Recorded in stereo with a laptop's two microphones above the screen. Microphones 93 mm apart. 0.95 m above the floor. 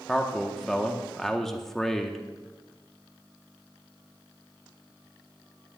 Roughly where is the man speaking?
Centre.